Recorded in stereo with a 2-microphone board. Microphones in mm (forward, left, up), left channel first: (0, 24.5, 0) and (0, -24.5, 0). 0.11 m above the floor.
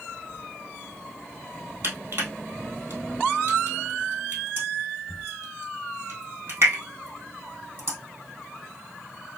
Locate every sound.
1.8 s crushing: 55° right (ahead or behind), 2.0 m